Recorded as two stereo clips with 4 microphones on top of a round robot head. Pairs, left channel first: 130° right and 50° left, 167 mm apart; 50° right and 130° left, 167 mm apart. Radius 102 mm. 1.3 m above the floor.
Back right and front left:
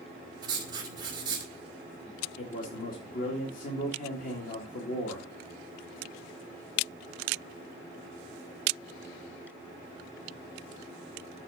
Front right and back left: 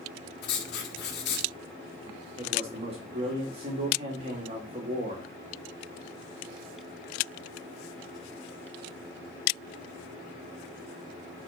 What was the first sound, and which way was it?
Writing, 20° right.